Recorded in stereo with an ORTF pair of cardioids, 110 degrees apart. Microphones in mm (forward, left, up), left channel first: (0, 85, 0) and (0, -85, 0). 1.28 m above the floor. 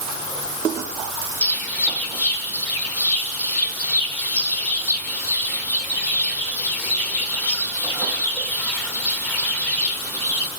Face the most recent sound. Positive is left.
turn(degrees=10)